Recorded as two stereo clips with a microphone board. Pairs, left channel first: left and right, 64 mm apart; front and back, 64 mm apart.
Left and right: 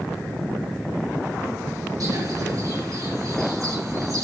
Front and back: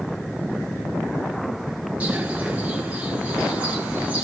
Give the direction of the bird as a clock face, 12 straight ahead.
4 o'clock.